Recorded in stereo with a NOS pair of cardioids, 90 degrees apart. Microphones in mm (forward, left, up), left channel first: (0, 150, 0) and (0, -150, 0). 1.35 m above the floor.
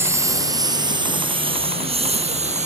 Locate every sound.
0.0 s a lawn mower: 10° right; by 2.7 s 20° right